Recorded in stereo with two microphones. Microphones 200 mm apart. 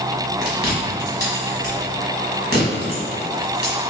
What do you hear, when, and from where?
0.4 s chewing: 55° right (ahead or behind), 1.9 m